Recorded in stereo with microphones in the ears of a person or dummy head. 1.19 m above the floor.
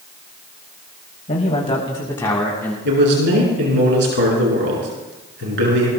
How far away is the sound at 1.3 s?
About 1.8 m.